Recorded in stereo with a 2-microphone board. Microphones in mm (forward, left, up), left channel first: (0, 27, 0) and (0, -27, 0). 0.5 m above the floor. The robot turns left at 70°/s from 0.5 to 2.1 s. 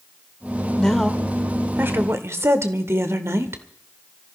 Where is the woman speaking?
20° left, 1.3 m; by 3.6 s 70° right, 1.3 m.